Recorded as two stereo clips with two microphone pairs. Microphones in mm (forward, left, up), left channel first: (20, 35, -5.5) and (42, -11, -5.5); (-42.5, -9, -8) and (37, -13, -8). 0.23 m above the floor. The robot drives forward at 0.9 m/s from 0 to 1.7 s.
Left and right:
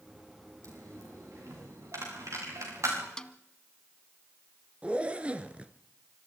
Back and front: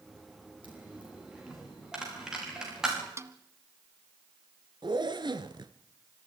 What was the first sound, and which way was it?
A dropped coin, 80° right.